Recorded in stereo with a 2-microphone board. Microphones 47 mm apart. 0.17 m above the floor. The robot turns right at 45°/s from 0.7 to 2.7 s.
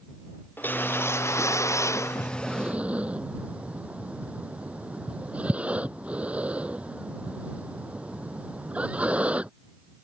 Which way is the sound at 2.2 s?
5° right (ahead or behind).